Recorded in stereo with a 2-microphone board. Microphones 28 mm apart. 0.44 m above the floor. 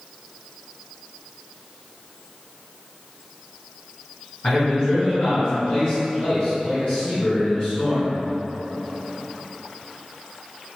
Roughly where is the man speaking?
Left.